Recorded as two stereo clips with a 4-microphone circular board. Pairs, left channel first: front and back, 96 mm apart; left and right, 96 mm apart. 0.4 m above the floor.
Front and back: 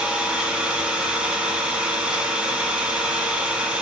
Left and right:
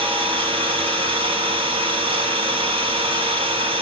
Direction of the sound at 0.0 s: 100° right.